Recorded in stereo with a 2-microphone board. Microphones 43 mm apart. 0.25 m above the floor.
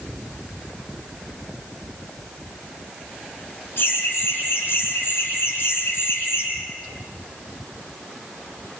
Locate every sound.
3.8 s laughter: 65° left (ahead or behind), 9.5 m; by 6.5 s 70° left (ahead or behind), 8.5 m